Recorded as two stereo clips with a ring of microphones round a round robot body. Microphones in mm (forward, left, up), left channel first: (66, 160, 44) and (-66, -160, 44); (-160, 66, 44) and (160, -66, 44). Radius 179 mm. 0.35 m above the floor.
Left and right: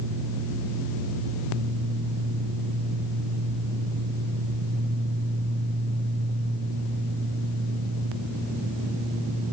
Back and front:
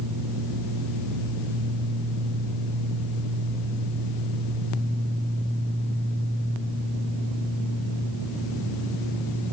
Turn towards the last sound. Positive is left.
No sound to turn to.